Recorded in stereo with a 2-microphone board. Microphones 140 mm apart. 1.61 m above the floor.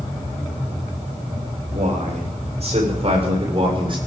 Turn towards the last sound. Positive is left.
turn(degrees=-35)  # may be behind; listen again after turning